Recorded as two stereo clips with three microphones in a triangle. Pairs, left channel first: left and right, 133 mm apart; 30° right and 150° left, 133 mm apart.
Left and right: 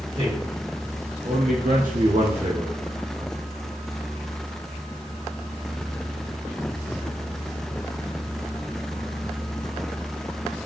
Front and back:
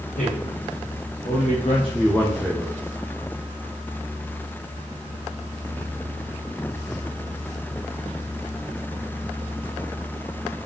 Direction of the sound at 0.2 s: 35° right.